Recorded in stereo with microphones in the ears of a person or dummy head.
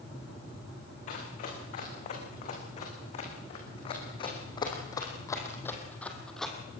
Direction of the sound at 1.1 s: 50° left (ahead or behind).